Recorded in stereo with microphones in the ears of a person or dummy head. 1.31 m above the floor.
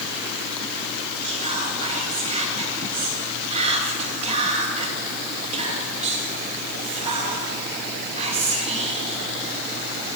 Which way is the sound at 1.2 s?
35° right (ahead or behind).